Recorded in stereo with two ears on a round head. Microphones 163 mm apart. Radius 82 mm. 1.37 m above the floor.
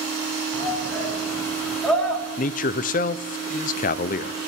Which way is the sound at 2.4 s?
45° left (ahead or behind).